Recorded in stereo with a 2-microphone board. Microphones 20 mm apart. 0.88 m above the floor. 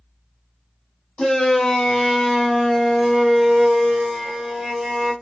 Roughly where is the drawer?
No drawer in this recording.